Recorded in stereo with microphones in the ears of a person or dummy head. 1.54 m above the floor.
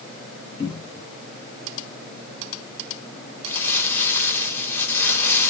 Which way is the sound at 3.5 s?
10° left (ahead or behind).